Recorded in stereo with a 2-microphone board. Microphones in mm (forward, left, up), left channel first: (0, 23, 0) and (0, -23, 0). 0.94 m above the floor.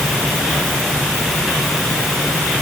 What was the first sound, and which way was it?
Only background noise.